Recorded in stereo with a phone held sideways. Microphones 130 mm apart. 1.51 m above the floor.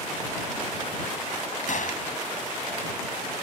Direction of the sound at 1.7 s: 70° left (ahead or behind).